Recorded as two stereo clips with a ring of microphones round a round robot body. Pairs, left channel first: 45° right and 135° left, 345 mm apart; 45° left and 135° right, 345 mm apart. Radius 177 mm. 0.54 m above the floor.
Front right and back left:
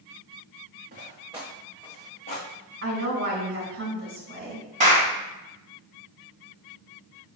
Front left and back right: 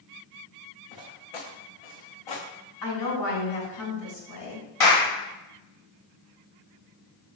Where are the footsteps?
70° left, 2 m; by 2.5 s 20° left, 2.5 m.